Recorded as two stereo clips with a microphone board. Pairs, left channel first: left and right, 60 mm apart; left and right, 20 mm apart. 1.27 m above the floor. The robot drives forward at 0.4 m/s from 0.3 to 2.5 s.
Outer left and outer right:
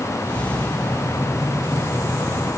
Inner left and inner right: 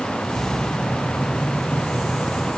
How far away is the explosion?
No explosion in this recording.